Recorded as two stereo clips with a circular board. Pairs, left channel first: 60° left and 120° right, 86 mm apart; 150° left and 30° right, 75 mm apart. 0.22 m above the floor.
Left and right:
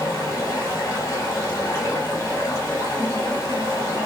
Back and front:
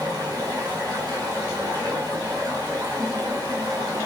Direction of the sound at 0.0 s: Straight ahead.